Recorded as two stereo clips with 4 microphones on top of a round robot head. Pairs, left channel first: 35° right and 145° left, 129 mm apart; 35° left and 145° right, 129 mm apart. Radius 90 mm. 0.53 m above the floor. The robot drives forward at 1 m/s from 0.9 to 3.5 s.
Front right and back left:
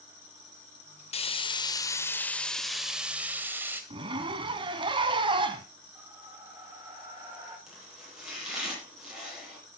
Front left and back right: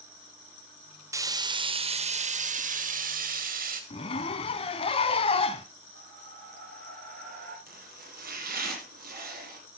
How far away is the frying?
About 1.8 m.